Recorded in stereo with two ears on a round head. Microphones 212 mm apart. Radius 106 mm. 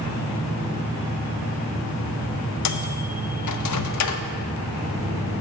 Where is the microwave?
80° left, 0.7 m.